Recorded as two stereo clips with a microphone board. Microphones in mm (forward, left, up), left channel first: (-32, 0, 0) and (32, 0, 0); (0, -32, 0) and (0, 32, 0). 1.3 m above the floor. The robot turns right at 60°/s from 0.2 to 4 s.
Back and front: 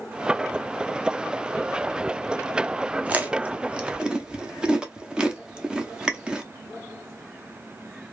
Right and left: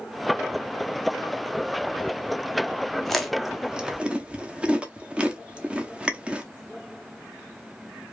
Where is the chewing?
10° right, 0.5 m; by 6.4 s 50° left, 0.5 m.